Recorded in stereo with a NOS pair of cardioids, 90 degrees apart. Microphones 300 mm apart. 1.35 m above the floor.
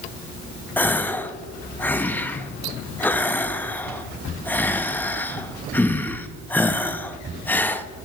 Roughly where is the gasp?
Ahead.